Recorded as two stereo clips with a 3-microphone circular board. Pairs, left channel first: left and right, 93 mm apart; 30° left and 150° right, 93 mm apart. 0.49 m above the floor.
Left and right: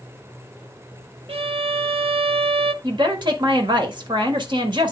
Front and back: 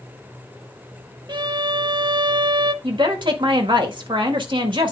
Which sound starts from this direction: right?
A violin, at 1.3 s.